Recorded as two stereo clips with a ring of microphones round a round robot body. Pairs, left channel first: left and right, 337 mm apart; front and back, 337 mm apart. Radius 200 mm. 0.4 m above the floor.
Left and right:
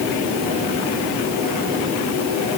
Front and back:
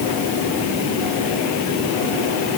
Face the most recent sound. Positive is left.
No sound to turn to.